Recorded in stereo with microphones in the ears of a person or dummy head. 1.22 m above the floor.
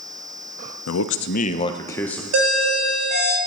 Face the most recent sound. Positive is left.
turn(degrees=-75)  # may be behind; listen again after turning